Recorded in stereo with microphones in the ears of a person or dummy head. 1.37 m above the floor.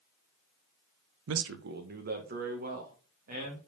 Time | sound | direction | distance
1.3 | a man speaking | 70° right (ahead or behind) | 0.6 m